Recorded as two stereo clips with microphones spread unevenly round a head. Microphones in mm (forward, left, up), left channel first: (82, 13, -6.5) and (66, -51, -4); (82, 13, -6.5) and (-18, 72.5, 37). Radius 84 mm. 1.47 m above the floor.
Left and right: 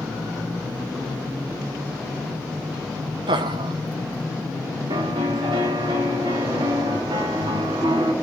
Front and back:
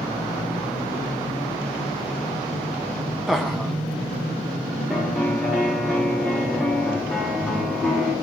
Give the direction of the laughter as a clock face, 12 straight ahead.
4 o'clock.